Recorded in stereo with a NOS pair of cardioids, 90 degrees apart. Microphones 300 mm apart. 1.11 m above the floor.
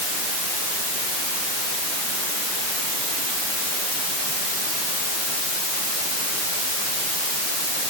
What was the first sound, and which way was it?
Only background noise.